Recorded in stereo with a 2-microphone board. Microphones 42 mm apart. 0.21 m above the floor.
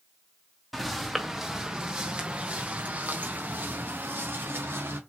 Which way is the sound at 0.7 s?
Centre (ahead or behind).